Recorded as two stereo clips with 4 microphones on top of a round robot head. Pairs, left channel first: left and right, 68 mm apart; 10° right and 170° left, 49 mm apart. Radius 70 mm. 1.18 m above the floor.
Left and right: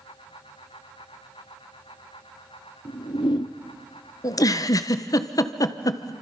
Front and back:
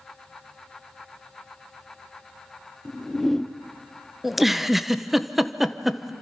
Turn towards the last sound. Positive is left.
turn(degrees=85)